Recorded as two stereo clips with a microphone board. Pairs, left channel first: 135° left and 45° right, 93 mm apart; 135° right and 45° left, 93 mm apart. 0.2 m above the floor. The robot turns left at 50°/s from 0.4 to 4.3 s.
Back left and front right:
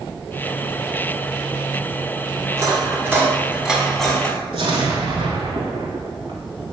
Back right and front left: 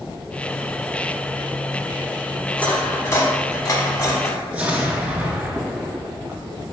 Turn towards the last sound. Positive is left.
turn(degrees=-30)